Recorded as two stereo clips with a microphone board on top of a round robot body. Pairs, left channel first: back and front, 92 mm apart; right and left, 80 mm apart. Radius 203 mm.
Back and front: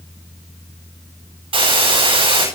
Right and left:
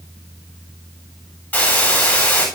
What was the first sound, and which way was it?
A hiss, 20° right.